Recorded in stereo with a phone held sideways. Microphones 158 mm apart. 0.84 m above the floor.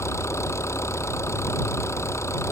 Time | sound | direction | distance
0.0 | an engine running | 15° left (ahead or behind) | ?